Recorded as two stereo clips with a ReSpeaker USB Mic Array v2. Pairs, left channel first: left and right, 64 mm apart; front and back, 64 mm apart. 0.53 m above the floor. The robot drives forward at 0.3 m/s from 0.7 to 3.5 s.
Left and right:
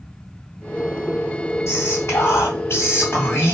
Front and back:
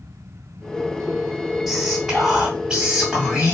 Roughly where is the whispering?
Left.